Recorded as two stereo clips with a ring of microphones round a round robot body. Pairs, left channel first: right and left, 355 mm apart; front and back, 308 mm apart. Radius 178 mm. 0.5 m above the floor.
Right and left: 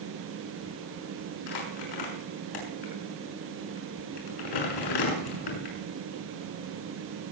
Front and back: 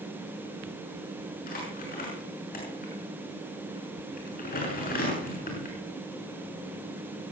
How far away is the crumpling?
About 6.5 m.